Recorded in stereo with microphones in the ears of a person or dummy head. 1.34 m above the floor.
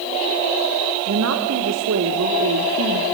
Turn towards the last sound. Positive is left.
turn(degrees=-75)  # may be behind; listen again after turning